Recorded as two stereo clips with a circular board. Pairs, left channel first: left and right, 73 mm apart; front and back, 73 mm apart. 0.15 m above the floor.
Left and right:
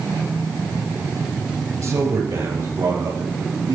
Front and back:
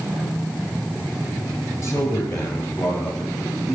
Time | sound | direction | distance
1.8 | a man speaking | 50° right | 3 m